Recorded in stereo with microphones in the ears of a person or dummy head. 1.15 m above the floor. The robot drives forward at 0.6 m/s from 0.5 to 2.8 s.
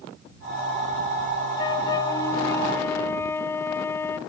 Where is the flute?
30° left (ahead or behind), 1.0 m; by 4.2 s 20° left (ahead or behind), 1.6 m.